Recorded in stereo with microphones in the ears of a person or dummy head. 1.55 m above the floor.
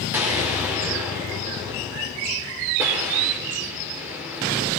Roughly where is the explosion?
Centre.